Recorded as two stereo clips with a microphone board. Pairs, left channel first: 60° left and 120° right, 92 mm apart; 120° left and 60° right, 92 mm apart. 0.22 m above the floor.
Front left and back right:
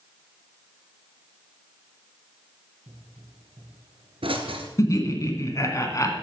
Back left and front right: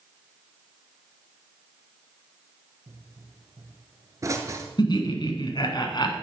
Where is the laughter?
105° left, 1.7 m.